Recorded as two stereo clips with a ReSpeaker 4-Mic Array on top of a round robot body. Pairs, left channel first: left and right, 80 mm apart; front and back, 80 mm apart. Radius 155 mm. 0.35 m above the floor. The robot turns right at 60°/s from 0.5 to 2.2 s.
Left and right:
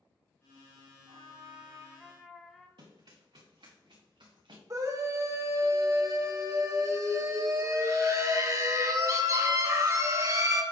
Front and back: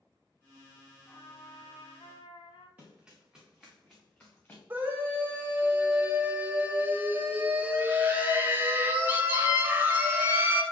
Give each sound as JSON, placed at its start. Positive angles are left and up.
{"t": 1.1, "sound": "a trumpet", "azimuth_deg": -65, "distance_m": 1.0}
{"t": 2.8, "sound": "running footsteps", "azimuth_deg": -110, "distance_m": 3.0}
{"t": 4.7, "sound": "a scream", "azimuth_deg": -120, "distance_m": 2.0}